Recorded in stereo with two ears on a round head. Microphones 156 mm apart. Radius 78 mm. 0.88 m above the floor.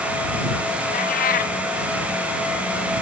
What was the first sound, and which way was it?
A cat meowing, 50° left (ahead or behind).